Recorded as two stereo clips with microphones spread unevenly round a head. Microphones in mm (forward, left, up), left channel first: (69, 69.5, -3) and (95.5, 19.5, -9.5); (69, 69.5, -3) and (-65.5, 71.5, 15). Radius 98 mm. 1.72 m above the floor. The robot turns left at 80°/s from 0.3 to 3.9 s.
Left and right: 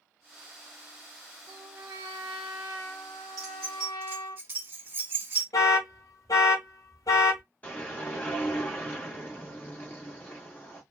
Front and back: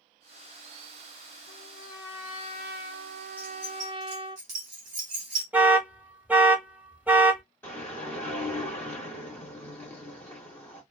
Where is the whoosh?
75° left, 1.5 m.